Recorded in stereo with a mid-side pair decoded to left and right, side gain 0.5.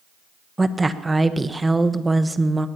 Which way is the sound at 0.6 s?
15° right.